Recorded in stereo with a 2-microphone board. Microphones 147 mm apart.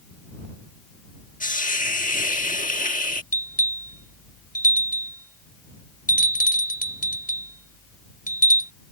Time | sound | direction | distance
1.4 | a hiss | 65° left (ahead or behind) | ?
3.3 | a bell | 70° left (ahead or behind) | ?